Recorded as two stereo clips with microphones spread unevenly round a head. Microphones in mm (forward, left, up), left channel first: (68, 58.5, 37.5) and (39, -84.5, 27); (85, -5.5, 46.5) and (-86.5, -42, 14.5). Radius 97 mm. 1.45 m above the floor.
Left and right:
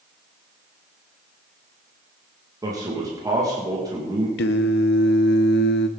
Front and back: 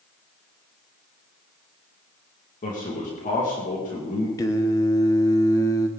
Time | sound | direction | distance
2.6 | a man speaking | 35° right | 2.5 m
4.4 | singing | 85° left | 0.8 m